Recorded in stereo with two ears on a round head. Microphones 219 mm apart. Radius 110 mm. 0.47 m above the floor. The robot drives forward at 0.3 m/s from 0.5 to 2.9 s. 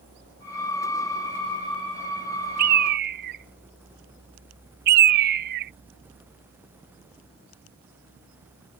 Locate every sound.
2.6 s a bird: 40° right (ahead or behind)